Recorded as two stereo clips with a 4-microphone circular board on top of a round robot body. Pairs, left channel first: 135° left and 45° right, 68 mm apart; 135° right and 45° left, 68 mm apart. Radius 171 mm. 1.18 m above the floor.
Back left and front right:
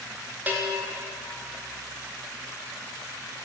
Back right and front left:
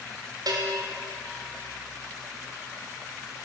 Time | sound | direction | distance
0.5 | a bell | 20° left | 1.2 m